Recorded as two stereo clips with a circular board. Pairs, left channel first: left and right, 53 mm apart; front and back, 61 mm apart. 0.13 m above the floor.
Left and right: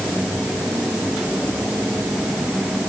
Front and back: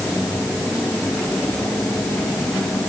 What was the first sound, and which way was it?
Only background noise.